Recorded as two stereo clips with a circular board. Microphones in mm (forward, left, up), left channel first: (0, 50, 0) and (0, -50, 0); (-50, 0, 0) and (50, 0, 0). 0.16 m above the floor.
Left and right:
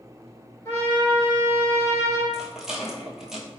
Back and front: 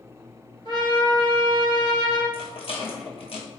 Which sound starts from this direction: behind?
A rattle, at 2.3 s.